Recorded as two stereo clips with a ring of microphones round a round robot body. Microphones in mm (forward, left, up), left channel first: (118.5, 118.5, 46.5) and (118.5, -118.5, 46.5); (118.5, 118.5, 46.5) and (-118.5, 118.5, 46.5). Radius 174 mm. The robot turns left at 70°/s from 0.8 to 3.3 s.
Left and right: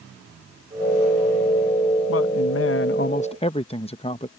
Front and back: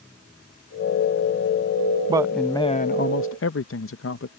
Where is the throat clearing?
No throat clearing in this recording.